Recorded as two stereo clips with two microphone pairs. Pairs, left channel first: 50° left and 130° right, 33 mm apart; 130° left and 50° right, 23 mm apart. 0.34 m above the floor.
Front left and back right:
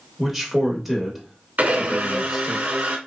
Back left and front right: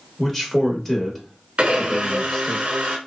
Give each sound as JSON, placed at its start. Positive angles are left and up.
{"t": 0.2, "sound": "a man speaking", "azimuth_deg": 155, "distance_m": 0.8}
{"t": 1.6, "sound": "a blender", "azimuth_deg": -90, "distance_m": 0.7}